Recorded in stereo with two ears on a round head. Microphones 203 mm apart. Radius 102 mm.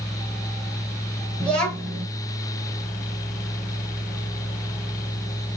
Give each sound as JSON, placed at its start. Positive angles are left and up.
{"t": 1.4, "sound": "a child speaking", "side_deg": 5, "distance_m": 0.8}